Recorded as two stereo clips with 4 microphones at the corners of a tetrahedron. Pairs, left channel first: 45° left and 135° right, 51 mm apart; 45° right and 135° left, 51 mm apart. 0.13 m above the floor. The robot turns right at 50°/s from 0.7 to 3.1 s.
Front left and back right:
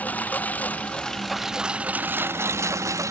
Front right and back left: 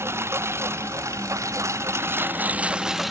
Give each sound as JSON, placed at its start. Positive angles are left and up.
{"t": 0.0, "sound": "a lawn mower", "azimuth_deg": 105}